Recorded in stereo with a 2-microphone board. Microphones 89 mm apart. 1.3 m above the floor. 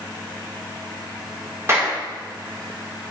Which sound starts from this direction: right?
A clap, at 1.7 s.